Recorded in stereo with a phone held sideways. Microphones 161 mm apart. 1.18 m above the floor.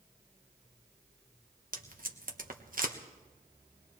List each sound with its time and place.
1.7 s tape being pulled: 60° right (ahead or behind), 1.1 m